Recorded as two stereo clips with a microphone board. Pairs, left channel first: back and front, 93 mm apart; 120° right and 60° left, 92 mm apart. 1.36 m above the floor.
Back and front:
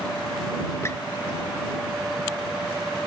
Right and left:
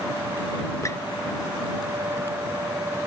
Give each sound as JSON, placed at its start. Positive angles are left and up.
{"t": 0.8, "sound": "a squeak", "azimuth_deg": -140}